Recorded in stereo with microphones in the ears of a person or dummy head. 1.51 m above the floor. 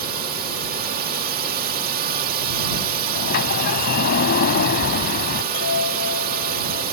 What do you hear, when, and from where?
0.0 s a drone: 45° right (ahead or behind)
3.1 s a sliding door: 60° left (ahead or behind)
5.5 s a chime: 80° left